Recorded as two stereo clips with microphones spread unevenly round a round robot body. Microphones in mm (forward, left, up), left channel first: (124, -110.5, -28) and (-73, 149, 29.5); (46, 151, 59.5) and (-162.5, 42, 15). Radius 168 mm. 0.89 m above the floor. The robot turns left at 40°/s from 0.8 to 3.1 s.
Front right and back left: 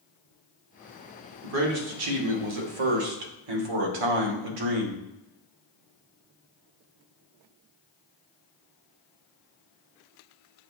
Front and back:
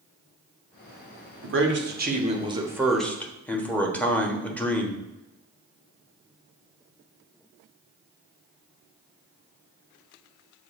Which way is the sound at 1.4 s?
Straight behind.